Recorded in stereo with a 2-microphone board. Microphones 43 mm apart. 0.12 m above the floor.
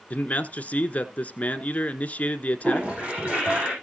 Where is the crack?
No crack in this recording.